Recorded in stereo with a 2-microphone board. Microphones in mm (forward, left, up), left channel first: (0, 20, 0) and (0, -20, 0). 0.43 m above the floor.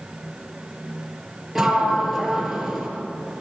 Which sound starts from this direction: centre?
A sliding door, at 1.6 s.